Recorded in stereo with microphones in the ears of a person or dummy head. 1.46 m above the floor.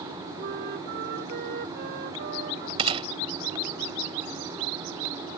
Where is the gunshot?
25° right (ahead or behind).